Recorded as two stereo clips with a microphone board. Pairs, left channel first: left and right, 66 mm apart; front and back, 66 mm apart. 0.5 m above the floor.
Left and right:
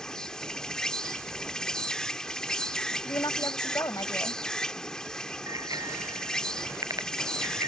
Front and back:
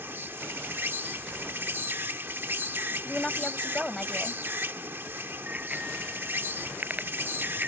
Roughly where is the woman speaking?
Left.